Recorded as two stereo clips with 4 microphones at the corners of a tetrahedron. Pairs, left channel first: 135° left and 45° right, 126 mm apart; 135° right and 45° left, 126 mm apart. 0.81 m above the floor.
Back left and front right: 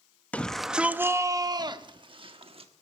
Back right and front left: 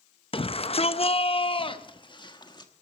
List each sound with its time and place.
0.3 s a shout: 155° right, 0.6 m; by 2.7 s 80° right, 1.4 m